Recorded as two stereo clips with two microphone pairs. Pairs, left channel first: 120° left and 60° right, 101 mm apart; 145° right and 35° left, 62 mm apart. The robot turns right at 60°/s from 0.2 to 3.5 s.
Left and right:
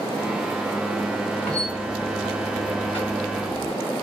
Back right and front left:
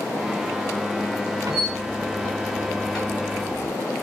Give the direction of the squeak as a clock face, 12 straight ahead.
11 o'clock.